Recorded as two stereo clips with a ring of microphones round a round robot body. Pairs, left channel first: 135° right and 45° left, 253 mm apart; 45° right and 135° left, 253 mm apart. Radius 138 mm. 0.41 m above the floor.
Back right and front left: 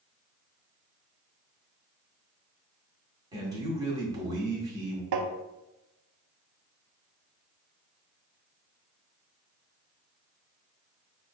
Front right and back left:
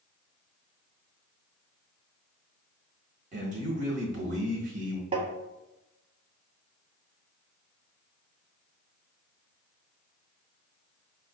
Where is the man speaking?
110° left, 1.4 m.